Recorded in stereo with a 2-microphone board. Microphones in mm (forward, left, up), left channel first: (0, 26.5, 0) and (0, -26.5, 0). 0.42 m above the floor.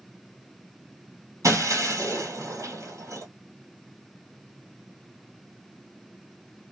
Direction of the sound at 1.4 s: 80° right.